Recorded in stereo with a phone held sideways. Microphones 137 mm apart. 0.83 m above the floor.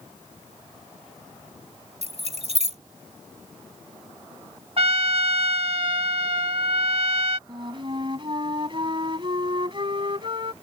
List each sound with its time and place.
2.0 s keys jangling: 55° right (ahead or behind)
4.8 s a trumpet: 50° right (ahead or behind)
7.5 s a flute: 40° right (ahead or behind)